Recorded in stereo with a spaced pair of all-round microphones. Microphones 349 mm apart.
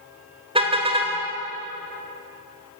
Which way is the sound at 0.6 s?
15° right (ahead or behind).